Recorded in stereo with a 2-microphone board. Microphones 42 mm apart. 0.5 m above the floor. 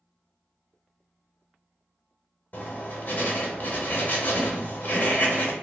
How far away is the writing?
About 0.6 m.